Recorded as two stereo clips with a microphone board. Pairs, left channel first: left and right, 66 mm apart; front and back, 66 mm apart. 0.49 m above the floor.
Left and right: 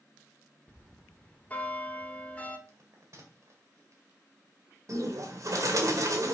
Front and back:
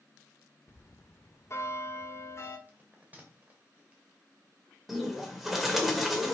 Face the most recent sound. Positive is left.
turn(degrees=-95)